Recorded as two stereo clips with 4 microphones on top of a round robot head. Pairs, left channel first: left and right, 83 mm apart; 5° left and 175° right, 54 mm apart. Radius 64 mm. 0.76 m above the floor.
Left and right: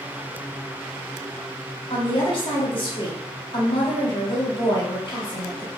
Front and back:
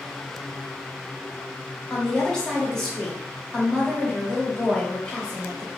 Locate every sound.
1.9 s a woman speaking: 80° left, 1.6 m